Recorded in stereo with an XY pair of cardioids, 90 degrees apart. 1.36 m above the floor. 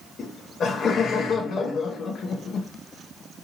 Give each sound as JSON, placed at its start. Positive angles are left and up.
{"t": 0.2, "sound": "laughter", "azimuth_deg": 65, "distance_m": 0.6}